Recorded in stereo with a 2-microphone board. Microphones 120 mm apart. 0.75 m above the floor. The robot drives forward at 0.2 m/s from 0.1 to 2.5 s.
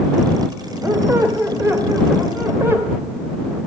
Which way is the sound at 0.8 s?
25° right (ahead or behind).